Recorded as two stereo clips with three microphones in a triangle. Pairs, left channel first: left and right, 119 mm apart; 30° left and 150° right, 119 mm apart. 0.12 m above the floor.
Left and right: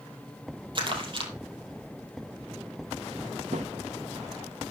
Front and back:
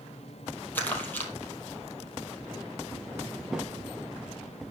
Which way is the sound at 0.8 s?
45° right.